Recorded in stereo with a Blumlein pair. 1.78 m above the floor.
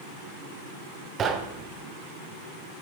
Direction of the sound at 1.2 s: 25° right.